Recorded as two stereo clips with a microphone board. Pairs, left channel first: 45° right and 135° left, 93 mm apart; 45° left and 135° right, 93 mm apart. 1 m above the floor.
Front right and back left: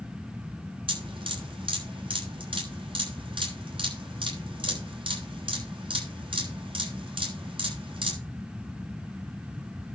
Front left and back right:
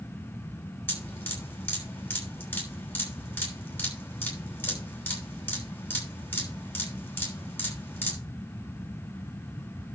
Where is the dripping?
110° left, 6.5 m.